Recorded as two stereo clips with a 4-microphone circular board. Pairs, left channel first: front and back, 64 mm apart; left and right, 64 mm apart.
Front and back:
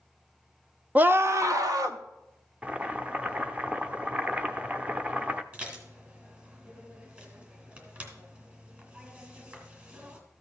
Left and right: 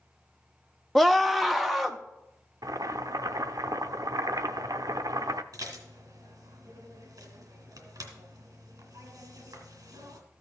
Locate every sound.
0.9 s a scream: 170° left, 0.5 m; by 2.0 s straight behind, 1.2 m
2.6 s boiling: 110° right, 0.6 m
5.5 s dishes clattering: 115° right, 2.5 m